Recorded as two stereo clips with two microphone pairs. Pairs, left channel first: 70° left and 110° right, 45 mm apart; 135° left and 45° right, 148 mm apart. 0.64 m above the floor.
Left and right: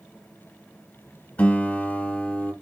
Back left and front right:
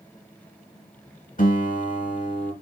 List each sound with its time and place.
1.4 s a guitar: 115° left, 0.9 m